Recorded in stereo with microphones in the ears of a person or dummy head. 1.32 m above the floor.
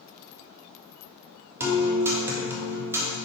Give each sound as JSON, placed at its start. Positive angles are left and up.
{"t": 1.6, "sound": "a guitar", "side_deg": -15, "distance_m": 1.6}